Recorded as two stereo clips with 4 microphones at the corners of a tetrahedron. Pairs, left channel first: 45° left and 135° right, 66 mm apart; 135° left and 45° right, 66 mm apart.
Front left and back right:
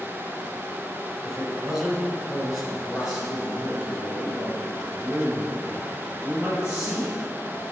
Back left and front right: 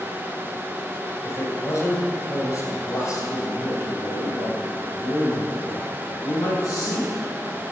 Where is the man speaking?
140° left, 1.8 m; by 7.3 s 145° left, 5 m.